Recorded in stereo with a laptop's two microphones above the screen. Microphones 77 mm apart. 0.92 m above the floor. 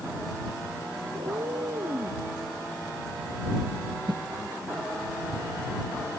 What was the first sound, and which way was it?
A cat meowing, 85° right.